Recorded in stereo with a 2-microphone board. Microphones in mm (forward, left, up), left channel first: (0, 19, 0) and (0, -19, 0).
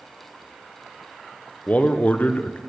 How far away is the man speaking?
About 0.7 m.